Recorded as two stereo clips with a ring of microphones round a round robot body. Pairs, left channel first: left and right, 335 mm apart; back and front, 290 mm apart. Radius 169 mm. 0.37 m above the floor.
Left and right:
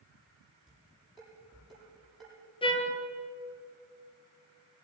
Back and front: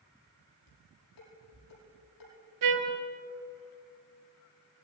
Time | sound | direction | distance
0.7 | dishes clattering | straight behind | 8.5 m
2.6 | a trumpet | 15° left | 2.5 m